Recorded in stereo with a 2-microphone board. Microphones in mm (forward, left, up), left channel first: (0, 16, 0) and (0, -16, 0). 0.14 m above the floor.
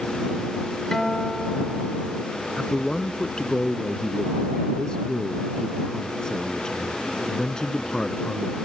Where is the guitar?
15° left (ahead or behind).